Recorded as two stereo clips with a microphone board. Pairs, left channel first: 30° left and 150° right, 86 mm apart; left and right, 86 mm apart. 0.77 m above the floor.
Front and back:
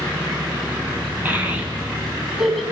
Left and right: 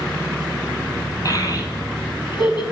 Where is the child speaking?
140° left, 3.5 m; by 2.6 s 120° left, 4 m.